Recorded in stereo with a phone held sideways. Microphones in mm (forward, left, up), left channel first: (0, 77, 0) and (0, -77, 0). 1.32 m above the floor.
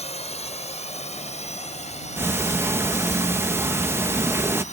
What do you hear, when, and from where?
0.0 s a drone: 45° left (ahead or behind)
2.2 s ticking: 15° right (ahead or behind)